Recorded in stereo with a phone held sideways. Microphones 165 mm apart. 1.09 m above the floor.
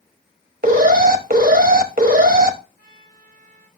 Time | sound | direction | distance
0.6 | an alarm | 60° right (ahead or behind) | 1.1 m
2.8 | a trumpet | 55° right (ahead or behind) | 7.5 m